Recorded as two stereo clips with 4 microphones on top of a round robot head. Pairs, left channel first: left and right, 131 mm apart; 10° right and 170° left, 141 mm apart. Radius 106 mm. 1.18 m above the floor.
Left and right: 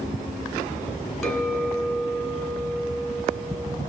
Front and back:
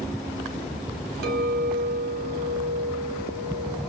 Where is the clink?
Straight behind, 2.5 m.